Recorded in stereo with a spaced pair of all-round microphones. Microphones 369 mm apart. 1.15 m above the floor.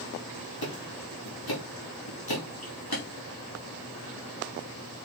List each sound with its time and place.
0.6 s ticking: 75° left (ahead or behind), 2.5 m